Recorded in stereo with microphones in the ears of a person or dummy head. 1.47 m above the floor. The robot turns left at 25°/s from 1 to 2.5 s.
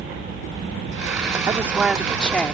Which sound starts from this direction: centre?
A woman speaking, at 1.5 s.